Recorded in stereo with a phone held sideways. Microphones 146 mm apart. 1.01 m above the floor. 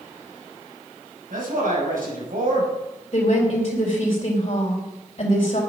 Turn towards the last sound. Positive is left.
turn(degrees=45)  # may be behind; listen again after turning